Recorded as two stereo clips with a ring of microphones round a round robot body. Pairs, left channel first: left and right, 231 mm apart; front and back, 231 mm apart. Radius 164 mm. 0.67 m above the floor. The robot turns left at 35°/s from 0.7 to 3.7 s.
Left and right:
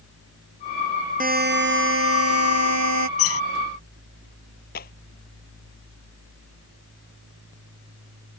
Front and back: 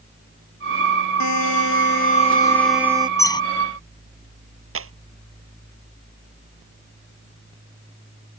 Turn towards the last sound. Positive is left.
turn(degrees=155)